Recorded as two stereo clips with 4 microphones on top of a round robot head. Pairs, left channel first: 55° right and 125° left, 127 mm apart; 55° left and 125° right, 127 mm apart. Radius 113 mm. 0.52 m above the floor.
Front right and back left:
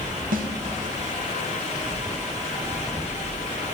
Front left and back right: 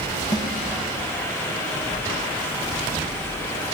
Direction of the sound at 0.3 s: 115° left.